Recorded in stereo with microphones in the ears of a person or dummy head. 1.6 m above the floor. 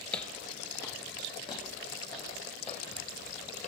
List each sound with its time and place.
0.1 s footsteps: 10° left (ahead or behind), 2.5 m; by 3.7 s 40° left (ahead or behind), 4.5 m